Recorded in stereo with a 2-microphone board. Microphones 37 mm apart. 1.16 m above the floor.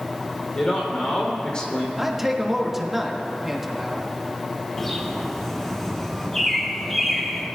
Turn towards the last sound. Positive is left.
turn(degrees=5)  # may be behind; listen again after turning